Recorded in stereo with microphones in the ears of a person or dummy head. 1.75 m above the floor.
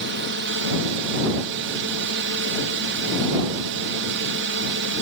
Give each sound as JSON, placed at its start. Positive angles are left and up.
{"t": 0.0, "sound": "a drone", "side_deg": -60}